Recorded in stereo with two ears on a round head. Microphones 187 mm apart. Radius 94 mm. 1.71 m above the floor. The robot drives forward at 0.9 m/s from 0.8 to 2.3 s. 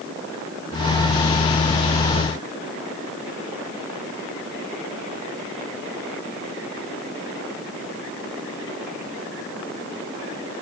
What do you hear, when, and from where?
Only background noise.